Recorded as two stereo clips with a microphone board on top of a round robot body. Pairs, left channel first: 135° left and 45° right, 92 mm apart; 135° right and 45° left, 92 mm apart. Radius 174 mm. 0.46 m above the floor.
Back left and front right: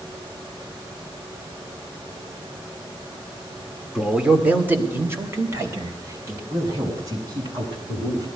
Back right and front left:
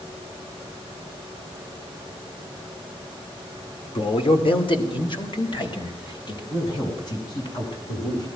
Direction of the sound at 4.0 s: 130° right.